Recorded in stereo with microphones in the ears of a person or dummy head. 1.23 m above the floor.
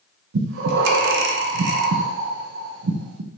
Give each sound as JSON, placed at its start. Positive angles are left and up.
{"t": 0.3, "sound": "breathing", "side_deg": -65, "distance_m": 0.6}